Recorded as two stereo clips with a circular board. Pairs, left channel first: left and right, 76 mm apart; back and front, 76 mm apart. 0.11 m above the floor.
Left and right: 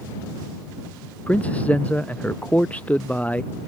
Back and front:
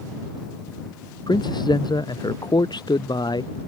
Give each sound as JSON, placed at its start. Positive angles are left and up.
{"t": 1.3, "sound": "a man speaking", "azimuth_deg": 160}